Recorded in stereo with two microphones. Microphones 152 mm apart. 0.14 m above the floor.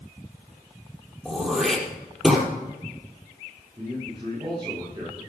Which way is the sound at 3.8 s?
30° right (ahead or behind).